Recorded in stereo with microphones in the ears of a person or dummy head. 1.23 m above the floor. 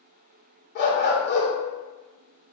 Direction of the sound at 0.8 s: 55° left (ahead or behind).